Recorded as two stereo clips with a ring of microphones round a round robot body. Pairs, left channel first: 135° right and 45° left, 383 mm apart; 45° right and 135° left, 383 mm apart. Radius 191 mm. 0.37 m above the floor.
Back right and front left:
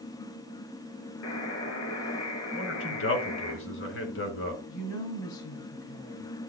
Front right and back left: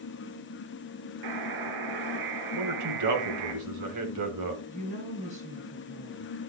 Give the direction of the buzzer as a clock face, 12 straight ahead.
6 o'clock.